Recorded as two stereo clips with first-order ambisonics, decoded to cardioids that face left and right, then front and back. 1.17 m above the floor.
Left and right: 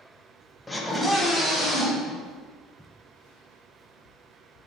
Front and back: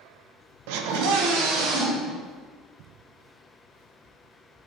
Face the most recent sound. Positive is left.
turn(degrees=-170)